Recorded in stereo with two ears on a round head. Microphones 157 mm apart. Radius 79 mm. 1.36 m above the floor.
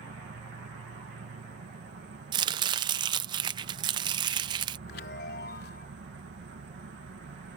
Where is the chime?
60° left (ahead or behind).